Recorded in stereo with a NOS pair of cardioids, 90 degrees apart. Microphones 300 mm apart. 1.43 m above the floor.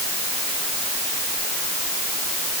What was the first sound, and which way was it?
Only background noise.